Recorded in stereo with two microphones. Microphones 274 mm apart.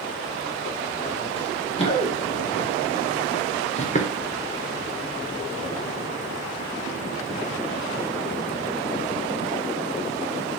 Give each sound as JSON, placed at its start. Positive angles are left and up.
{"t": 1.4, "sound": "running footsteps", "side_deg": 20, "distance_m": 4.5}